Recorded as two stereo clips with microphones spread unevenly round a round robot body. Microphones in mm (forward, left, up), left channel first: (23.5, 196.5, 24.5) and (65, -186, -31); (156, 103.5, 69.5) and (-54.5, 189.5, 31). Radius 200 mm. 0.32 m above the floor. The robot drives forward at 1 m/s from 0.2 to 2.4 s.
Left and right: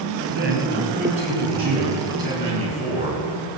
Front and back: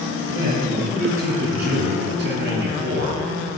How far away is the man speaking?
About 2.5 m.